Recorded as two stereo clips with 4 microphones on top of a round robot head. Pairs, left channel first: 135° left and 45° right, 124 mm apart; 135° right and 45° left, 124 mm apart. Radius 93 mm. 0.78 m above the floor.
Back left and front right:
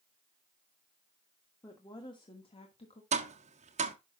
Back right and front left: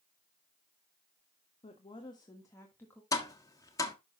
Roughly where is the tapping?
Right.